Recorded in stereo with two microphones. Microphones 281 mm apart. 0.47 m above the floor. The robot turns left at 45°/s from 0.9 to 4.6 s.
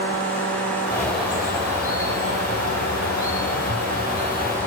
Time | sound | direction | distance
0.9 | a bird | 10° left | 2.5 m